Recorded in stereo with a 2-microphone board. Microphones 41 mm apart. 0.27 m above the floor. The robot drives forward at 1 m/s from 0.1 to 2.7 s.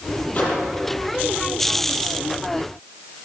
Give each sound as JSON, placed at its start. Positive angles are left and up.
{"t": 0.3, "sound": "a microwave", "side_deg": 40, "distance_m": 8.0}